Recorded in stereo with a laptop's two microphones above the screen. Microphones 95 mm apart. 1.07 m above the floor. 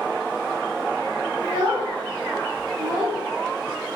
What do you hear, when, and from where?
1.4 s a child speaking: 60° right (ahead or behind), 1.3 m; by 3.2 s 70° right (ahead or behind), 0.7 m